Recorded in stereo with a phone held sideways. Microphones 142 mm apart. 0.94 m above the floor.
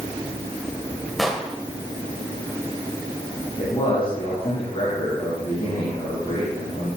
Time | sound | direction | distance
1.2 | an explosion | centre (ahead or behind) | 1.9 m
3.6 | a man speaking | 35° left (ahead or behind) | 8.5 m